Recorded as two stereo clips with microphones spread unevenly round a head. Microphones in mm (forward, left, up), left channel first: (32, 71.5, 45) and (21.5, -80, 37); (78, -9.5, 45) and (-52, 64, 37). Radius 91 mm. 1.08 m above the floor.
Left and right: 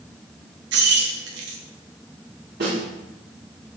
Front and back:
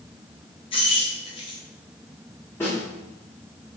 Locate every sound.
0.7 s keys jangling: 90° right, 0.6 m
2.6 s a snare drum: 105° right, 2.0 m